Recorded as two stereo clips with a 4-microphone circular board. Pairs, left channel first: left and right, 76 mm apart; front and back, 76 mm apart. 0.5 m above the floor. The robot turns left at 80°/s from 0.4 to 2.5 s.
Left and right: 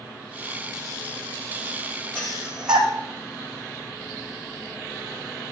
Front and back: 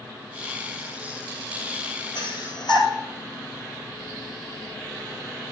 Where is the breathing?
20° left, 2.5 m; by 2.9 s 10° right, 2.5 m.